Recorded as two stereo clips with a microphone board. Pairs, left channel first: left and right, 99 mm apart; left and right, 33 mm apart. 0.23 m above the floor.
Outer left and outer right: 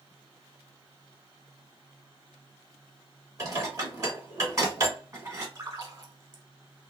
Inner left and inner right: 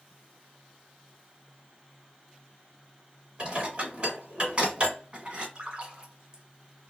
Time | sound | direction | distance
3.4 | dishes clattering | 35° right (ahead or behind) | 1.5 m
5.5 | a splash | 40° right (ahead or behind) | 1.1 m